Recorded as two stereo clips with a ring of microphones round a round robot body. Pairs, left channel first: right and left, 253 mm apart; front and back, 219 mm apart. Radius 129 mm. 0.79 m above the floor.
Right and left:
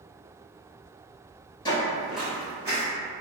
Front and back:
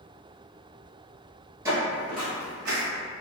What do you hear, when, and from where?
1.6 s footsteps: 130° right, 0.8 m; by 2.8 s 165° left, 1.2 m